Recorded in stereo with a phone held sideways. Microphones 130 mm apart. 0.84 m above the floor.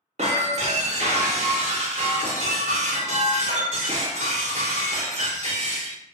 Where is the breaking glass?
55° right (ahead or behind), 0.8 m.